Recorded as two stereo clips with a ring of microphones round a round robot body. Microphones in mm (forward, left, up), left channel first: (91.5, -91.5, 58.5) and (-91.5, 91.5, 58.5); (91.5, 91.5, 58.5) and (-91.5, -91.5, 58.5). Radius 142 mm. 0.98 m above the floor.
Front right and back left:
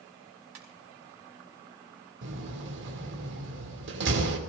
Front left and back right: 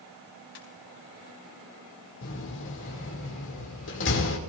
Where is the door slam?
90° left, 2.5 m.